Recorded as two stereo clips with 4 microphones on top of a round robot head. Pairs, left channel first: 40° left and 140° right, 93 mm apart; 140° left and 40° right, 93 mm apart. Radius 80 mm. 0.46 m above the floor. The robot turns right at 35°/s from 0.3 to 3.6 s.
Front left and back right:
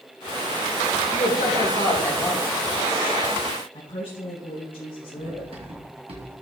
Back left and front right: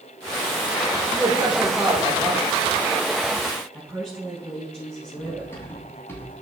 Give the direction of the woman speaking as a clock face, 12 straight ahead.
10 o'clock.